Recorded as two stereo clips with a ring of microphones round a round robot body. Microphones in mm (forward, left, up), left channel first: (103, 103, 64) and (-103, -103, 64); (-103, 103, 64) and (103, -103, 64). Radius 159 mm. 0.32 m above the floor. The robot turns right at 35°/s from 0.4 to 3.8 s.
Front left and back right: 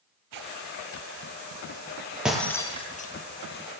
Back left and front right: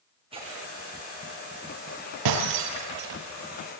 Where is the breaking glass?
50° right, 5.5 m; by 3.1 s 15° right, 5.5 m.